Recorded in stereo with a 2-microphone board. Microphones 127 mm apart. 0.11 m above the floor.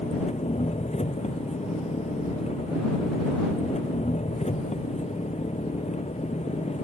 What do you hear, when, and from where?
0.0 s an engine running: 60° left (ahead or behind)